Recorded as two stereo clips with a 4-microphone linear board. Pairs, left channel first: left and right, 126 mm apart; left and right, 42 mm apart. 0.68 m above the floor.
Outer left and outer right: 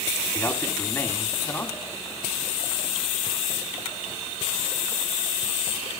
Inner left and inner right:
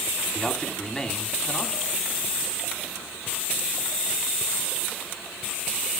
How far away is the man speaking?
About 1.7 m.